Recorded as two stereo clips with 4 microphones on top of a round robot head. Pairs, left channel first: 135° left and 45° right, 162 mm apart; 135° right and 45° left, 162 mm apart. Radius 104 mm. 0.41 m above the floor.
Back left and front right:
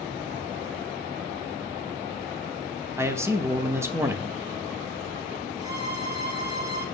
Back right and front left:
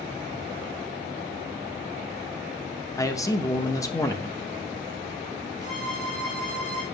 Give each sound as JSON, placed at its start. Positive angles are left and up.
{"t": 3.0, "sound": "a man speaking", "azimuth_deg": -95, "distance_m": 0.8}
{"t": 5.6, "sound": "a violin", "azimuth_deg": -95, "distance_m": 3.0}